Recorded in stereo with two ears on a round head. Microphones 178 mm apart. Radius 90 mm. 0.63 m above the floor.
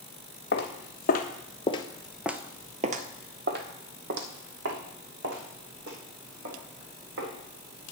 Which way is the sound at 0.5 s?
55° left (ahead or behind).